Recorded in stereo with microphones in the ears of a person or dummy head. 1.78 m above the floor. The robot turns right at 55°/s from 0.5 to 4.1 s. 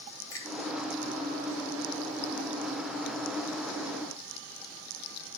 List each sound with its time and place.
0.3 s a finger snap: 20° left (ahead or behind), 2 m